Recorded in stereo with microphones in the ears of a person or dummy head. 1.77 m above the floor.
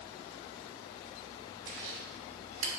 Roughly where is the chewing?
Right.